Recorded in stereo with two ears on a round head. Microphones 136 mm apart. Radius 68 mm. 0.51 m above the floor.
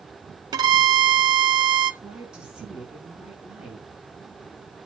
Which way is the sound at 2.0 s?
5° right (ahead or behind).